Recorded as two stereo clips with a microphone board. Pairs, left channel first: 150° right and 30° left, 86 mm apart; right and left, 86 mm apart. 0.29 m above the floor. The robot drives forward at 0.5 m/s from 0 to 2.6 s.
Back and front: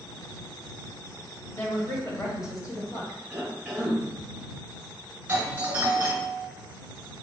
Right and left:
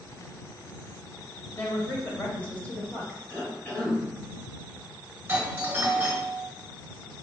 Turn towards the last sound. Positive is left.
turn(degrees=70)